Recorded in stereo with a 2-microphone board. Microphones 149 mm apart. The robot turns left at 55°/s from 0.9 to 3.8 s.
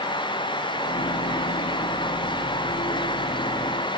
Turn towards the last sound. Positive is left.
No sound to turn to.